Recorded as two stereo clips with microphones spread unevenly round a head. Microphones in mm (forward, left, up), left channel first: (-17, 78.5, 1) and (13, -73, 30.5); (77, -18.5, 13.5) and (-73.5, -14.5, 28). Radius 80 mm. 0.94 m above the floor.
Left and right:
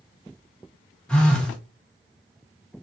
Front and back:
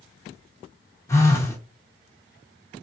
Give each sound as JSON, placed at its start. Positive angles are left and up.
{"t": 1.1, "sound": "a phone buzzing", "azimuth_deg": 40, "distance_m": 0.9}